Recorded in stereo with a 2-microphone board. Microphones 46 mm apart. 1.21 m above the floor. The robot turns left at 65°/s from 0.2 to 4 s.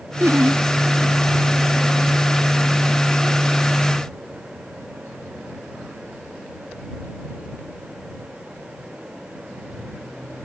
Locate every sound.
0.2 s laughter: 60° right (ahead or behind); by 0.6 s 85° right